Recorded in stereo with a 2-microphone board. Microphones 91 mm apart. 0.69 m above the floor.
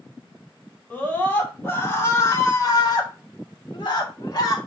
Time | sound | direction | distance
0.9 | a scream | 15° left (ahead or behind) | 3.5 m